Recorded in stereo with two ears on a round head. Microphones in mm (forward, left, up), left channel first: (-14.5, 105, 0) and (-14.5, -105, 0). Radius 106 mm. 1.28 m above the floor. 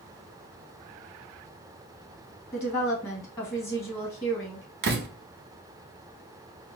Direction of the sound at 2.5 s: 10° left (ahead or behind).